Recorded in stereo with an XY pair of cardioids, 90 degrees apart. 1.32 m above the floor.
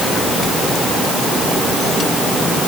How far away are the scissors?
No scissors in this recording.